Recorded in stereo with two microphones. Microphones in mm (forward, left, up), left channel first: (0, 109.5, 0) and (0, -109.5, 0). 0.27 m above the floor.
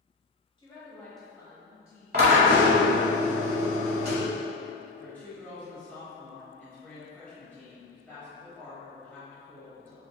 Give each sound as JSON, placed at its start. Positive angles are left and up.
{"t": 0.6, "sound": "a woman speaking", "side_deg": 25, "distance_m": 1.1}
{"t": 2.1, "sound": "a drill", "side_deg": -45, "distance_m": 1.0}
{"t": 5.0, "sound": "a woman speaking", "side_deg": 10, "distance_m": 0.9}